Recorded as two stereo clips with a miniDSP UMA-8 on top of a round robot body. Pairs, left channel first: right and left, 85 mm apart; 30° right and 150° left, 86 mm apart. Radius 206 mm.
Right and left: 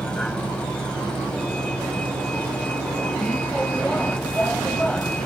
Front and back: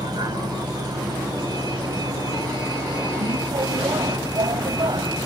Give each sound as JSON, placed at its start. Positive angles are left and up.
{"t": 0.0, "sound": "a vehicle", "azimuth_deg": -170}